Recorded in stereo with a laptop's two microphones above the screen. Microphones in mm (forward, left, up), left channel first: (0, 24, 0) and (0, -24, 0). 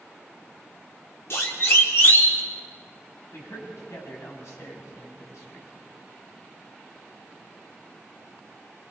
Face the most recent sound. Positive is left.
turn(degrees=80)